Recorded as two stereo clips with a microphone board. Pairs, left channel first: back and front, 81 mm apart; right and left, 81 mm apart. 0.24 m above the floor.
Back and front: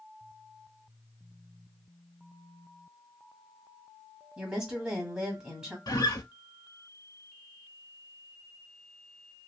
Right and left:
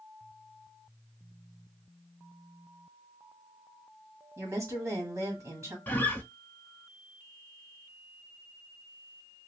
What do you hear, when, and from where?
4.4 s a woman speaking: 75° left, 1.5 m
5.9 s a guitar: 155° right, 0.6 m